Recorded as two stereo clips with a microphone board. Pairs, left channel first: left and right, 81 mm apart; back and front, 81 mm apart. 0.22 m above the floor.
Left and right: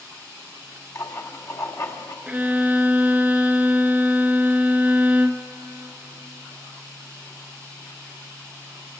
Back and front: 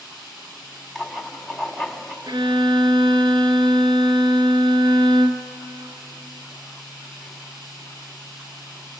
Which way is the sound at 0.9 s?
95° left.